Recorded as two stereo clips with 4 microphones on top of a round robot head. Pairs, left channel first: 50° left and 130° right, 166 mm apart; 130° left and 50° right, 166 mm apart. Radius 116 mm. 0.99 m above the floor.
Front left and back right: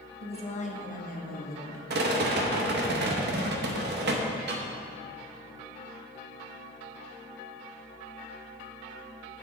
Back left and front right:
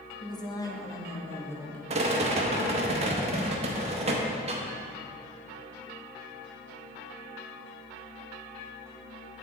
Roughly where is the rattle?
Right.